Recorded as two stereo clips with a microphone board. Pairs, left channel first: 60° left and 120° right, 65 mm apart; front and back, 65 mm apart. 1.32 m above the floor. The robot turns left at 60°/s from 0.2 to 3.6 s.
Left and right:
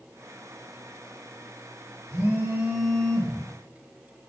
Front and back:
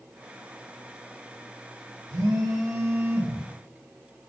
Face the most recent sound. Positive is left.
turn(degrees=105)